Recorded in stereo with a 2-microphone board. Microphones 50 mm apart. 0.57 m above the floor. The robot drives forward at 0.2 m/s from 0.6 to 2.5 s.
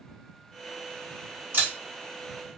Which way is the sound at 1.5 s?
50° right (ahead or behind).